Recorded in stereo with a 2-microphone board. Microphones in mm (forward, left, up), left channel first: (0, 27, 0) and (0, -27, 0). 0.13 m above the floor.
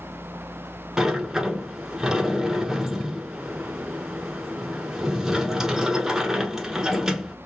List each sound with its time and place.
1.0 s a sliding door: 10° right (ahead or behind), 0.7 m